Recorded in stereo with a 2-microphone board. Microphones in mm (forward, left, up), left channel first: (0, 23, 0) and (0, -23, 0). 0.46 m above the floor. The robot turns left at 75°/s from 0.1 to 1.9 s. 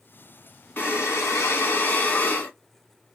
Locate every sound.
0.8 s breathing: 130° left, 1.6 m; by 2.5 s 45° left, 1.6 m